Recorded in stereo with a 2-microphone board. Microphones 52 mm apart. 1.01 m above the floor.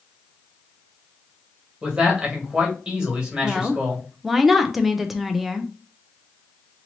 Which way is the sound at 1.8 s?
20° right (ahead or behind).